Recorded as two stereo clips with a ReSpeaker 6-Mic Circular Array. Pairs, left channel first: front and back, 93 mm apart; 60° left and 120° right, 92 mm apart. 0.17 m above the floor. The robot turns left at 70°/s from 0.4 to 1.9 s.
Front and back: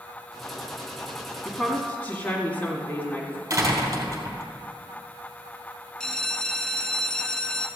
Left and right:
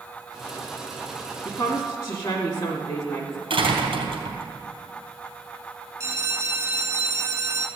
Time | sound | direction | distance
1.4 | a woman speaking | 85° left | 1.7 m
3.5 | a door slam | 130° right | 2.5 m
6.0 | a bell | 80° right | 1.1 m